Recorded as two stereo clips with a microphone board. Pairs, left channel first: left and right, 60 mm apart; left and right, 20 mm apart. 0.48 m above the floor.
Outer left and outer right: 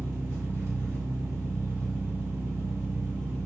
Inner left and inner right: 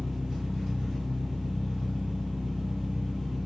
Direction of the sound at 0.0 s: 45° right (ahead or behind).